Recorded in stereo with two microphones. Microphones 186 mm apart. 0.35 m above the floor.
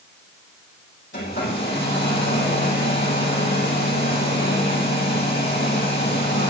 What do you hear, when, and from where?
1.1 s a hair dryer: 85° left, 6.5 m